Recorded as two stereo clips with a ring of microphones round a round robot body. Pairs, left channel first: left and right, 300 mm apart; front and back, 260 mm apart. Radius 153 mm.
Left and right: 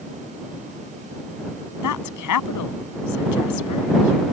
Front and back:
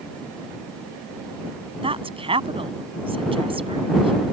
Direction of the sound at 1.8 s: 110° left.